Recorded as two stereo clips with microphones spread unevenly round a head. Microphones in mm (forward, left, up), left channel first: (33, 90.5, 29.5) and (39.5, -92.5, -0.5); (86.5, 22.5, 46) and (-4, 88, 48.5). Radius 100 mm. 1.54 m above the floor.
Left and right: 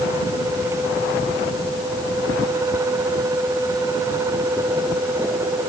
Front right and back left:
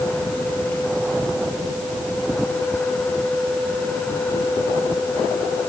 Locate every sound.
Only background noise.